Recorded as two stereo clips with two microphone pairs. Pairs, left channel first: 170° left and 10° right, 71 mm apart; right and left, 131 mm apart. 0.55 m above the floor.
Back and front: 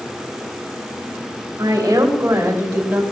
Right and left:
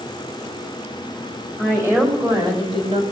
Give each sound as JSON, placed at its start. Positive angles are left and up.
{"t": 1.6, "sound": "a woman speaking", "azimuth_deg": 15, "distance_m": 3.0}